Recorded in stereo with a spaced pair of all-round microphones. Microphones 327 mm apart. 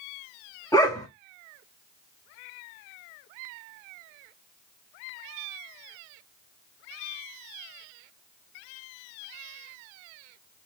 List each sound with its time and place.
0.7 s a dog barking: 10° left (ahead or behind), 1.1 m